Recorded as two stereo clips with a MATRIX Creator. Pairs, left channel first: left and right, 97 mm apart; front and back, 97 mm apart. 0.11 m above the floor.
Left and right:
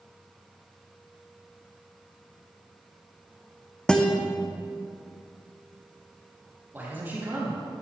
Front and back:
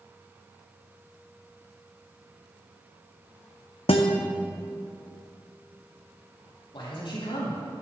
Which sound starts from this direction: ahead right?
A man speaking, at 6.7 s.